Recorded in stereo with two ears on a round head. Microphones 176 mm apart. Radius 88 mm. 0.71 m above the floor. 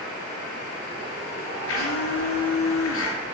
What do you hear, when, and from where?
1.7 s a blender: 75° left (ahead or behind), 5 m